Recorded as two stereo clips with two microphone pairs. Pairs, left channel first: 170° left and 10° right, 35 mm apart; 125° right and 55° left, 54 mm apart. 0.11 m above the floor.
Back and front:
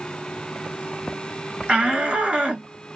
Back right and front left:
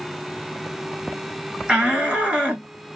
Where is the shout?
Straight ahead, 1.6 m.